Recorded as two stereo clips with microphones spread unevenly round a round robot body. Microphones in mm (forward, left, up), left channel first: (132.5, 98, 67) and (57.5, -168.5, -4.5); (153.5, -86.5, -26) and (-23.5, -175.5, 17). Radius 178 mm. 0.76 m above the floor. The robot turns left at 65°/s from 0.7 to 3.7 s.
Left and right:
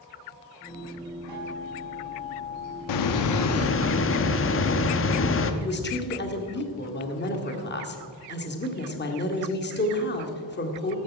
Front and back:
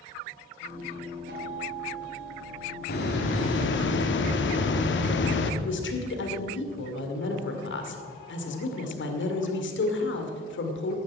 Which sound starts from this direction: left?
A hiss, at 2.9 s.